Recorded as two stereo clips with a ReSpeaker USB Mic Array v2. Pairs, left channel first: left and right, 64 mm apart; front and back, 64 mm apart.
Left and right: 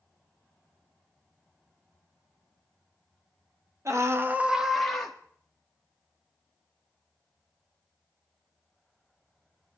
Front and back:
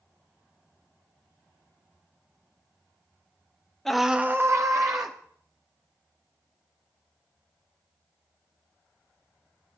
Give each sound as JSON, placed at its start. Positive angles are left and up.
{"t": 3.9, "sound": "a scream", "azimuth_deg": -80, "distance_m": 1.0}